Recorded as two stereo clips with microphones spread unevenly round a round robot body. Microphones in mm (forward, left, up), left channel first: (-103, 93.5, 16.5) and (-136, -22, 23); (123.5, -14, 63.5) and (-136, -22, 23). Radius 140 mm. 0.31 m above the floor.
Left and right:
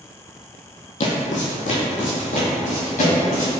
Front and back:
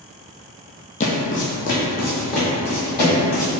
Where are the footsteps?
60° left, 0.6 m; by 3.5 s 55° left, 2.5 m.